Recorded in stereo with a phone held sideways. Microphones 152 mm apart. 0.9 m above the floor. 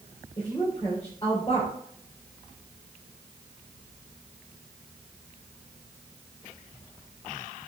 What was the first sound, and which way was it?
A woman speaking, 30° left (ahead or behind).